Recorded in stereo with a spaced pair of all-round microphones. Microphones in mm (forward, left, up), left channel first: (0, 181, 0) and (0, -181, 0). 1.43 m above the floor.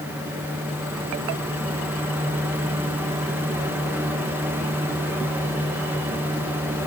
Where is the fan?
5° right (ahead or behind), 3 m.